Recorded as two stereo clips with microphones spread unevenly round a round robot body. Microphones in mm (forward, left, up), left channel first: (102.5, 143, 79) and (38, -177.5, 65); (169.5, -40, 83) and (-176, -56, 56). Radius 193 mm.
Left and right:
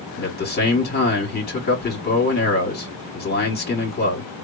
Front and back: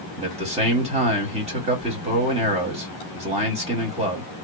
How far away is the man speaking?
About 1.5 m.